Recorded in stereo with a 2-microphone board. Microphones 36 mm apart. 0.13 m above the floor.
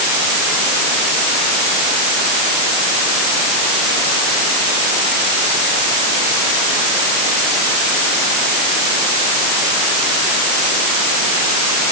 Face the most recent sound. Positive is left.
No sound to turn to.